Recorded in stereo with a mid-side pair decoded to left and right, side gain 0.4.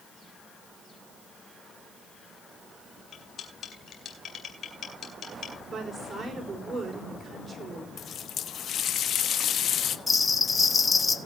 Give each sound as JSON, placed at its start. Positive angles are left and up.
{"t": 3.1, "sound": "cutlery clinking", "azimuth_deg": 60, "distance_m": 4.0}
{"t": 5.7, "sound": "a woman speaking", "azimuth_deg": -35, "distance_m": 4.5}
{"t": 8.0, "sound": "a running tap", "azimuth_deg": 65, "distance_m": 1.0}
{"t": 10.1, "sound": "a bell", "azimuth_deg": 30, "distance_m": 1.5}